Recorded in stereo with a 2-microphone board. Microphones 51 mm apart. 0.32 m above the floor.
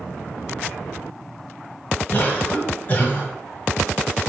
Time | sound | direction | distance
2.1 | a cough | 40° left (ahead or behind) | 1.8 m